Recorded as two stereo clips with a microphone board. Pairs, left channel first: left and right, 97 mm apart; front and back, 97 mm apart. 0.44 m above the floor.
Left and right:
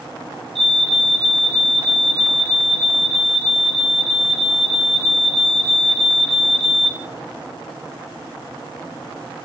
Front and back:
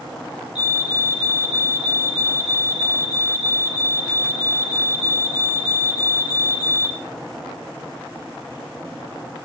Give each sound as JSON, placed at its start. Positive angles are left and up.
{"t": 0.6, "sound": "a fire alarm", "azimuth_deg": -95, "distance_m": 5.5}